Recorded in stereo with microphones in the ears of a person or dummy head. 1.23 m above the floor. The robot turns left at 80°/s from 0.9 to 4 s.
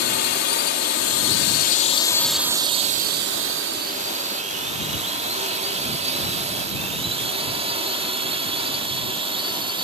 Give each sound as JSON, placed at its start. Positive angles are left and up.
{"t": 0.0, "sound": "a drone", "side_deg": 50}